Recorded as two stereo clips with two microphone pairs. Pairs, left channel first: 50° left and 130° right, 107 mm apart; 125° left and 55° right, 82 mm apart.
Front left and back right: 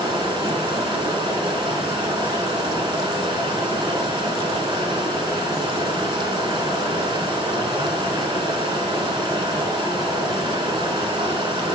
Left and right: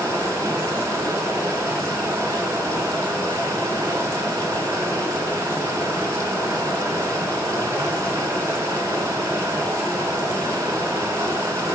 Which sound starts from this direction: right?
Running water, at 0.0 s.